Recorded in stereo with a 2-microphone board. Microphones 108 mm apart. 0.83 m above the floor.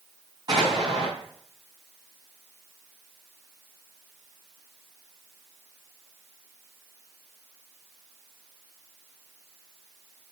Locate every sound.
0.5 s an explosion: 40° right (ahead or behind), 4 m